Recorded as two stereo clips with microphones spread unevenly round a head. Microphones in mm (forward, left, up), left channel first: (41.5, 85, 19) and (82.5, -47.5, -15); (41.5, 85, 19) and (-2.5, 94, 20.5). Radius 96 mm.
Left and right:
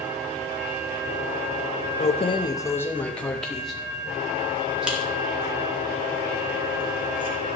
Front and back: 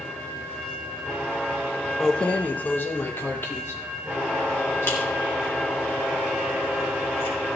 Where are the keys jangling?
70° left, 0.8 m; by 7.3 s 5° left, 6 m.